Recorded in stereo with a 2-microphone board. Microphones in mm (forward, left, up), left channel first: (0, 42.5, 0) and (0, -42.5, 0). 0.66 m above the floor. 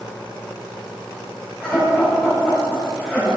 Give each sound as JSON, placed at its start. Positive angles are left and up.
{"t": 1.6, "sound": "laughter", "side_deg": 15, "distance_m": 4.0}